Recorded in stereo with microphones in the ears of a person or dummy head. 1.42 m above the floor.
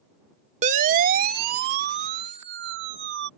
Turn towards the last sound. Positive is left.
turn(degrees=-70)  # may be behind; listen again after turning